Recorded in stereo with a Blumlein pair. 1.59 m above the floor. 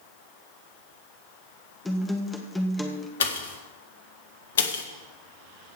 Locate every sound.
1.9 s a guitar: 10° left, 1.7 m
3.2 s a pop: 60° left, 1.5 m